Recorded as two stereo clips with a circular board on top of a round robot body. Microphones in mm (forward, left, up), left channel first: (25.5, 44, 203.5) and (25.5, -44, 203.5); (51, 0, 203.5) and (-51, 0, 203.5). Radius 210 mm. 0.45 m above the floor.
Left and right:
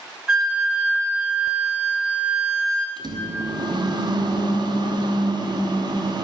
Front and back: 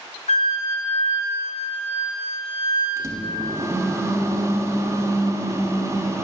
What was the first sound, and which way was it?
A flute, 10° right.